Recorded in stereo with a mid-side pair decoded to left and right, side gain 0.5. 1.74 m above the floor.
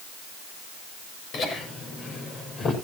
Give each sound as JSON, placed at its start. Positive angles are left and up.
{"t": 1.3, "sound": "laughter", "azimuth_deg": 60, "distance_m": 7.5}